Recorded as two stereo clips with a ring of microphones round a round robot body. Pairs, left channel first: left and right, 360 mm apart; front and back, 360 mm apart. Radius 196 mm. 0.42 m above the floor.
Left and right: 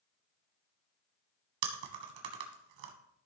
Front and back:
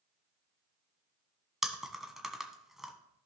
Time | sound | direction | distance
1.6 | chewing | 90° right | 1.5 m